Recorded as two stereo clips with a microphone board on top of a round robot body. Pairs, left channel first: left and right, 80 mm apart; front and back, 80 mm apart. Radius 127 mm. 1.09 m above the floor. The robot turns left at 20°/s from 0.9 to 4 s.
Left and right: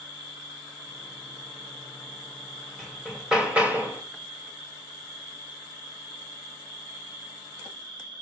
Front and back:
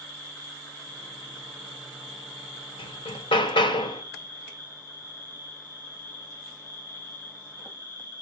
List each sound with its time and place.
0.0 s an insect: 60° right, 9 m; by 8.2 s 120° right, 9 m
2.8 s hammering: straight ahead, 2 m; by 4.0 s 25° right, 2 m